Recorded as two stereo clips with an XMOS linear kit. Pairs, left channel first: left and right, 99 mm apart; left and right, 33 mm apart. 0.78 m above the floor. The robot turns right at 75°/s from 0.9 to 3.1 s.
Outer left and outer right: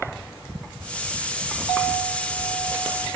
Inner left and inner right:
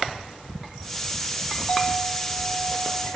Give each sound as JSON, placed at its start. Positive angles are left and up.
{"t": 1.7, "sound": "a clink", "azimuth_deg": 50, "distance_m": 1.3}